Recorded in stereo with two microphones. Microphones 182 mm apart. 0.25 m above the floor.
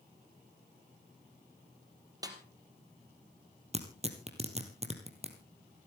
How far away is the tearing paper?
About 2.5 m.